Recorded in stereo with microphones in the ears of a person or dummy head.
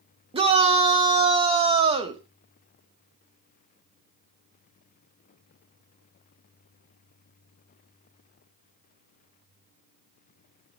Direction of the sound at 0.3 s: 30° right (ahead or behind).